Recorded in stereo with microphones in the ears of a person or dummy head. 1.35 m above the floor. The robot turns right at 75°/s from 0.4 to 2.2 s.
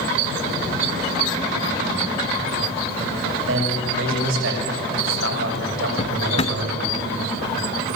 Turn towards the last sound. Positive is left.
turn(degrees=35)  # may be behind; listen again after turning